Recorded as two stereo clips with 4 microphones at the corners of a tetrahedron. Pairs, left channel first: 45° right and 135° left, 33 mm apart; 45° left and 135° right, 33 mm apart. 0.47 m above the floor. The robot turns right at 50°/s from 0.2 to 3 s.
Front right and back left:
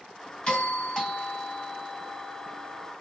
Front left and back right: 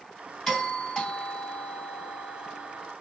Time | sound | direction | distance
0.5 | a doorbell | 25° right | 2 m